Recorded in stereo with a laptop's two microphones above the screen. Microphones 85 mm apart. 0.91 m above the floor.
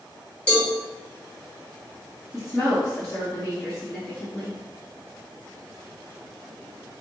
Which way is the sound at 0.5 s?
15° left (ahead or behind).